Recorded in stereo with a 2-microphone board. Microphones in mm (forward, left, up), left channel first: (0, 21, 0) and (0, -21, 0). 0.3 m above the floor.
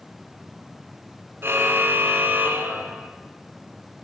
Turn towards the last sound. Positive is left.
turn(degrees=-55)  # may be behind; listen again after turning